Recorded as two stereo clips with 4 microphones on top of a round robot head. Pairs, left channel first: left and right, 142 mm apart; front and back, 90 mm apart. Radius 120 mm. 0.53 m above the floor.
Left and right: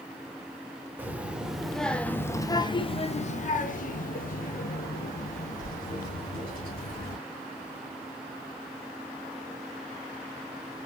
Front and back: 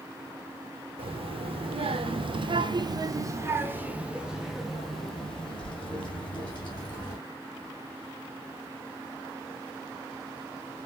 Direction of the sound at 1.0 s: 165° right.